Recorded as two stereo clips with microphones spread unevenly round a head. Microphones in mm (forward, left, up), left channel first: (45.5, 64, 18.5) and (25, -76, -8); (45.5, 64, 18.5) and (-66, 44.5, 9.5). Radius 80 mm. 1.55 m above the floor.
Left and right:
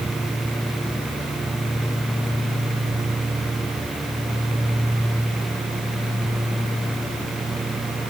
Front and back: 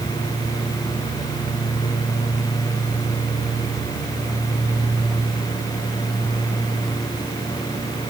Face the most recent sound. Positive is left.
No sound to turn to.